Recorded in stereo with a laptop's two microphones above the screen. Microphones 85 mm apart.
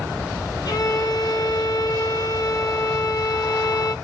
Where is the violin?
55° left (ahead or behind), 1.2 m.